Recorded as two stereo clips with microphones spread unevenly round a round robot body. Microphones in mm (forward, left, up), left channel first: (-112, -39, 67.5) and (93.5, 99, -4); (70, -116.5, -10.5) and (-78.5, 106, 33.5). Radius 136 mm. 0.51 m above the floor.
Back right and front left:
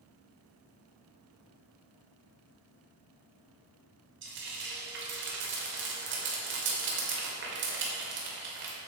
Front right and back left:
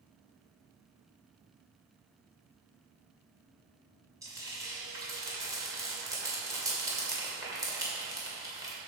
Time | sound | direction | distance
4.2 | frying | 40° left | 2 m